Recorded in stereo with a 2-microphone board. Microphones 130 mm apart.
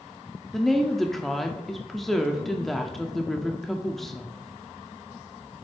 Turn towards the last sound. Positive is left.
turn(degrees=0)  # may be behind; listen again after turning